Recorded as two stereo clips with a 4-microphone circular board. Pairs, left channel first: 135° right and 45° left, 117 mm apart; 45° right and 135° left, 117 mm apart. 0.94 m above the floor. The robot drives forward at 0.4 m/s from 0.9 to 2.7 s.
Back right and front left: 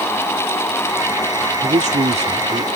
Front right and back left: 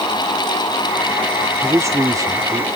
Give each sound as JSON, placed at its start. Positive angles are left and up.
{"t": 1.6, "sound": "a man speaking", "azimuth_deg": 65}